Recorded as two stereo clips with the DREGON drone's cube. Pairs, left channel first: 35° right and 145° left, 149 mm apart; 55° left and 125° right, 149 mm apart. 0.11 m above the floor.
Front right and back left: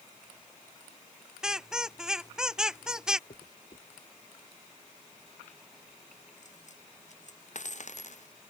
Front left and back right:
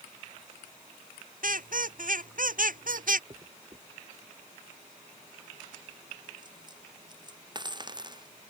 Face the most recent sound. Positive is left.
turn(degrees=-65)